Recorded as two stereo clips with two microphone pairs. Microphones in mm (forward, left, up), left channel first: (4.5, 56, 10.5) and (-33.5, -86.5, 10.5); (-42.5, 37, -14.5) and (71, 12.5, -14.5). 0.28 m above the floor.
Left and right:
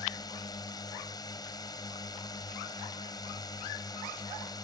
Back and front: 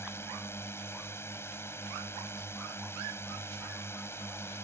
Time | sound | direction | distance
0.0 | a drone | 115° left | ?